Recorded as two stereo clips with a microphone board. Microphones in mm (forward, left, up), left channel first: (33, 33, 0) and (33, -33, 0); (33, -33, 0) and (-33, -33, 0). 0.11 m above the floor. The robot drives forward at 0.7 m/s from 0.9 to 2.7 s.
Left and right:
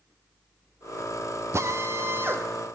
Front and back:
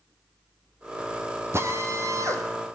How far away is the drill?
About 2 m.